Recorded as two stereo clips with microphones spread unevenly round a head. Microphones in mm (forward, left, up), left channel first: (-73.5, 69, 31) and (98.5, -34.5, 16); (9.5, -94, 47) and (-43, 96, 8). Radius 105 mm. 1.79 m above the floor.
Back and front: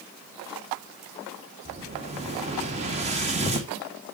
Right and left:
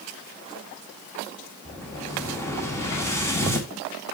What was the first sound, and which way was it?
An explosion, 50° right.